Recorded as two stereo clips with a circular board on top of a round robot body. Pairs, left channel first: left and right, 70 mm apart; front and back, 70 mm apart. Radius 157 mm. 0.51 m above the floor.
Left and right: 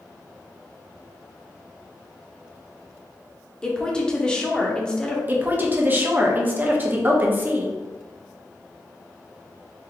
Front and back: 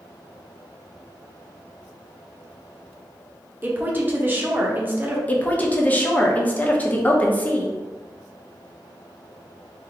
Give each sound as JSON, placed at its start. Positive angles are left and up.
{"t": 3.6, "sound": "a woman speaking", "azimuth_deg": 155, "distance_m": 1.1}
{"t": 5.3, "sound": "a woman speaking", "azimuth_deg": -50, "distance_m": 1.0}